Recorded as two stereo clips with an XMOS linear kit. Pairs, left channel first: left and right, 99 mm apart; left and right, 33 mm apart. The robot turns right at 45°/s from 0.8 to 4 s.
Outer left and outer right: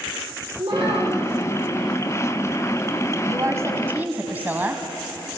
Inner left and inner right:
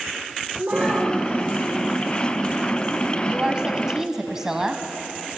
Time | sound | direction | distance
0.6 | a child speaking | 65° right (ahead or behind) | 8.5 m
3.2 | a woman speaking | 65° right | 1.2 m